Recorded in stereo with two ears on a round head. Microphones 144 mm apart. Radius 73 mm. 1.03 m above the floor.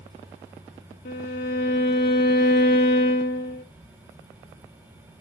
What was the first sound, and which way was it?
A violin, 65° left (ahead or behind).